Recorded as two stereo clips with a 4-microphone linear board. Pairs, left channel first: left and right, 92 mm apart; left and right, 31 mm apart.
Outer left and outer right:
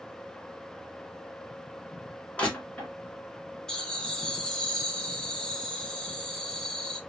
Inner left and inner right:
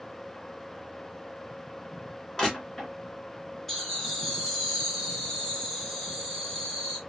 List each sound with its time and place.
2.4 s crushing: 15° left (ahead or behind), 2.5 m
3.7 s laughter: 10° left (ahead or behind), 2.0 m